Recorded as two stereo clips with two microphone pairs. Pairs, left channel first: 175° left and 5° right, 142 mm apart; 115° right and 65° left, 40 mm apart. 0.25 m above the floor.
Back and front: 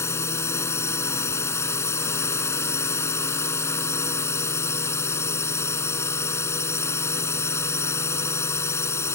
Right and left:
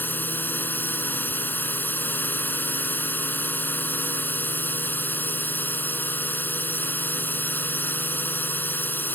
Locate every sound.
0.0 s a drone: 120° right